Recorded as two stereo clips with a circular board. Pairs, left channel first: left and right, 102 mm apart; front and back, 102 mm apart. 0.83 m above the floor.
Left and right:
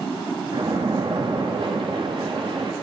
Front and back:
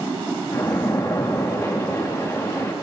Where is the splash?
60° right, 0.9 m.